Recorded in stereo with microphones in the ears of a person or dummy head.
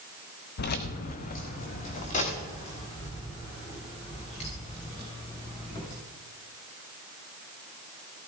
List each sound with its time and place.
0.6 s keys jangling: 45° left (ahead or behind), 0.7 m; by 5.9 s 25° left (ahead or behind), 4 m